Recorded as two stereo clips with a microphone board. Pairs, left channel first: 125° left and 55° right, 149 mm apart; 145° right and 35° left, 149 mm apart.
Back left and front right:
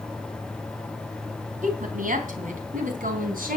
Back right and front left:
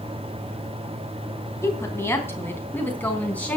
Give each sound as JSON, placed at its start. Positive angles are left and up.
{"t": 1.6, "sound": "a woman speaking", "azimuth_deg": -75, "distance_m": 3.0}